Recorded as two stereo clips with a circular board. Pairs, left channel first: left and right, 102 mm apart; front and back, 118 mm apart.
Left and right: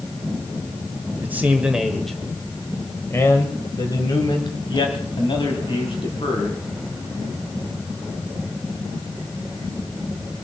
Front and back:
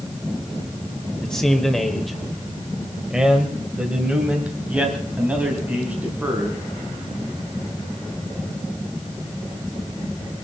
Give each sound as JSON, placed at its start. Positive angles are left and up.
{"t": 1.2, "sound": "a man speaking", "azimuth_deg": -70, "distance_m": 1.5}